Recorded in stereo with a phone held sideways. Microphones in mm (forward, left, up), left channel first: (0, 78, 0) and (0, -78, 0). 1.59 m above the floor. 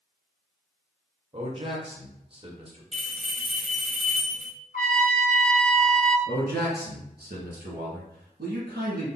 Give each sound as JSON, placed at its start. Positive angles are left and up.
{"t": 1.3, "sound": "a man speaking", "side_deg": -35, "distance_m": 1.4}
{"t": 2.9, "sound": "a bell", "side_deg": 0, "distance_m": 1.0}
{"t": 4.7, "sound": "a trumpet", "side_deg": 65, "distance_m": 1.2}
{"t": 6.3, "sound": "a man speaking", "side_deg": -80, "distance_m": 2.5}